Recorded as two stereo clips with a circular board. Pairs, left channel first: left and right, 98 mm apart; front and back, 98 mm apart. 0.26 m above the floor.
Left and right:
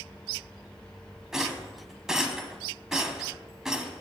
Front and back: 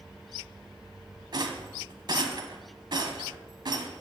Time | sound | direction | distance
1.3 | a rattle | 175° right | 1.1 m